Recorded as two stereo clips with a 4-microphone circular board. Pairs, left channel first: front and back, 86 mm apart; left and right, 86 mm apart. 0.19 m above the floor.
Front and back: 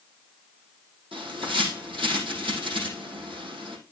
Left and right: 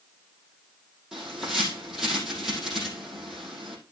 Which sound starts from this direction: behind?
A bird, at 1.1 s.